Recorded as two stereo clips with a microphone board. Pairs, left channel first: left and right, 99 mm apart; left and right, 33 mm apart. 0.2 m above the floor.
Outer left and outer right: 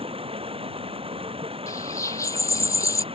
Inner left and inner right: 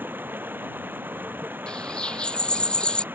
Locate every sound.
0.0 s running water: 75° right (ahead or behind)
1.7 s a bird: 30° left (ahead or behind)